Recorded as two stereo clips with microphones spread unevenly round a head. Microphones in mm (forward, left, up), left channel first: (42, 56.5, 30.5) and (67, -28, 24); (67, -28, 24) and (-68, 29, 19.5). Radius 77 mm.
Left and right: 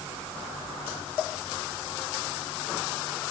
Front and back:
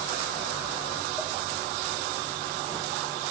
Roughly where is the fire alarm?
No fire alarm in this recording.